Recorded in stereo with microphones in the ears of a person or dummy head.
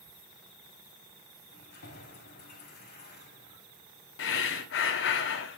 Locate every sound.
1.5 s keys jangling: 55° left (ahead or behind), 3.5 m
4.2 s breathing: 65° left (ahead or behind), 1.1 m